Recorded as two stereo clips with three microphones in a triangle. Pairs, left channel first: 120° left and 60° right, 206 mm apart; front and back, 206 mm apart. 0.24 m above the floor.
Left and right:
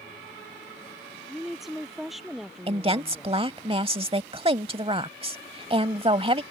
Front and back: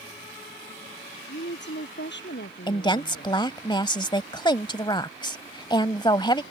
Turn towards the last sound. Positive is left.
turn(degrees=-40)